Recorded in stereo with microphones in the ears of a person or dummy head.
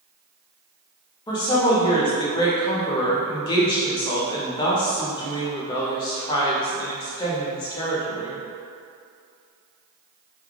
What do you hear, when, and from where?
1.3 s a woman speaking: 25° left (ahead or behind), 0.6 m